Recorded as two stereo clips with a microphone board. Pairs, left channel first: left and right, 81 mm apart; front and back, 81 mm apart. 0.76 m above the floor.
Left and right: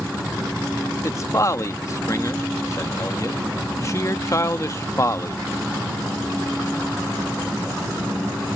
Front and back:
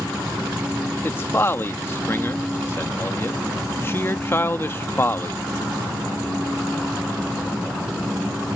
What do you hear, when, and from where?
1.0 s a man speaking: 50° left